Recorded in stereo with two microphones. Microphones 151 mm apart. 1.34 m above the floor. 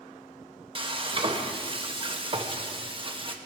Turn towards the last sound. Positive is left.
turn(degrees=-35)  # may be behind; listen again after turning